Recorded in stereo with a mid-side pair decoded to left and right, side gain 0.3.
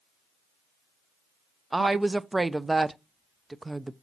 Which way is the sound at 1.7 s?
25° right.